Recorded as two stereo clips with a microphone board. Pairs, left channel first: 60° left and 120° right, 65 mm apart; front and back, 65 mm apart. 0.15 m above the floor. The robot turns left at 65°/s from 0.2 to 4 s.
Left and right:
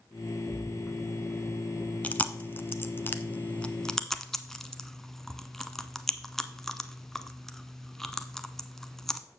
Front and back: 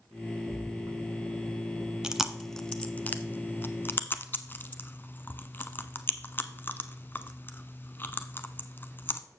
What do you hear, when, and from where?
0.5 s a splash: 175° left, 4.5 m; by 1.9 s 80° left, 4.5 m
2.0 s chewing: 110° left, 0.6 m; by 9.2 s 20° right, 0.6 m